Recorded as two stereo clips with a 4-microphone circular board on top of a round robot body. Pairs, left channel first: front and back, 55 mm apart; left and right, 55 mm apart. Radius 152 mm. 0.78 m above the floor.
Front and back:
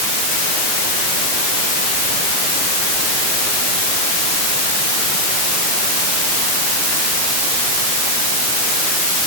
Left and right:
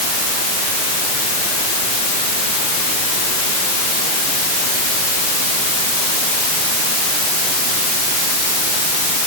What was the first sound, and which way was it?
Only background noise.